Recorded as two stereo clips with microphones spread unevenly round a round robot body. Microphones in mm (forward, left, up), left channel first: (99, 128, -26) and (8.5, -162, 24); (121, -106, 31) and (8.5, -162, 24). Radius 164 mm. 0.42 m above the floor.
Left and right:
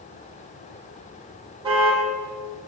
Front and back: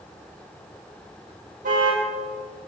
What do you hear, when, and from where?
1.6 s a car horn: 175° left, 8.5 m